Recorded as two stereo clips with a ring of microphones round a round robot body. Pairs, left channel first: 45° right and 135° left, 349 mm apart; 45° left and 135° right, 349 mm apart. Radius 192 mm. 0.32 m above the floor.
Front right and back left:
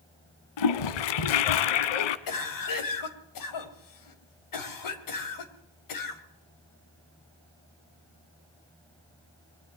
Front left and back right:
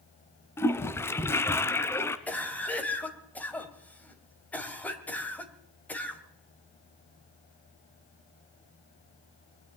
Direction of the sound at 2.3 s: 40° right.